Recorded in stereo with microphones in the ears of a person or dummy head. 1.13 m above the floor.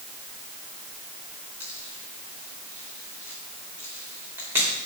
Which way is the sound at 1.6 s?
5° right (ahead or behind).